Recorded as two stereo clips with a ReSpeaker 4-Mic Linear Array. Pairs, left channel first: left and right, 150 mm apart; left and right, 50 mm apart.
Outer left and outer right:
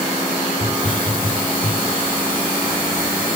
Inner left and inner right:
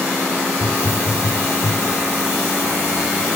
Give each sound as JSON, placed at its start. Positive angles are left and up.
{"t": 0.6, "sound": "a hiss", "side_deg": 65, "distance_m": 4.0}